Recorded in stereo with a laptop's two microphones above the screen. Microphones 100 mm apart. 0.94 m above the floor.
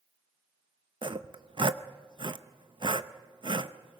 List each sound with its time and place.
1.0 s sawing: 55° right (ahead or behind), 0.7 m